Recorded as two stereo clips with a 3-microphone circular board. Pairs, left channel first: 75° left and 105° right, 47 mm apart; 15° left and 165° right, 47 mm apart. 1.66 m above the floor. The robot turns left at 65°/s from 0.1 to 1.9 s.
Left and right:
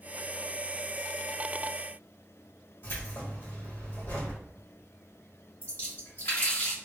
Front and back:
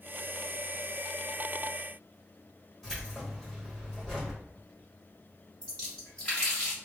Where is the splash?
75° left, 1.7 m.